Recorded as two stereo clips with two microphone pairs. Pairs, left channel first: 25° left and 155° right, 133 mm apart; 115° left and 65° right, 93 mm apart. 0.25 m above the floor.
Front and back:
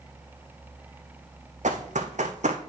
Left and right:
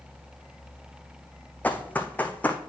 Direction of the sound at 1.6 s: 170° right.